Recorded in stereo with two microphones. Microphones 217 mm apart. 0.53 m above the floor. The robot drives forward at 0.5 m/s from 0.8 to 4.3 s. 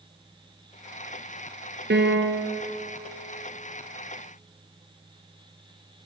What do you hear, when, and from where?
1.9 s a piano: 55° right (ahead or behind), 3 m; by 2.6 s 60° right (ahead or behind), 2.5 m